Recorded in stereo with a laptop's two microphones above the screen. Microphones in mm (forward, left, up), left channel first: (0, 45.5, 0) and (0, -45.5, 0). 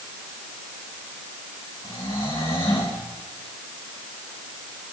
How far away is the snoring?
About 7.5 m.